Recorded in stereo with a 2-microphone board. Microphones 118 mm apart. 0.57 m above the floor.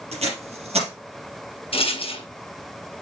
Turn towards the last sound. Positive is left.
turn(degrees=55)  # may be behind; listen again after turning